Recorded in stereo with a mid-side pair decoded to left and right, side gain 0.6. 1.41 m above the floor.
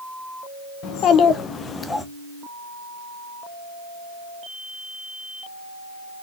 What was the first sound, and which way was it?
A child speaking, 65° left.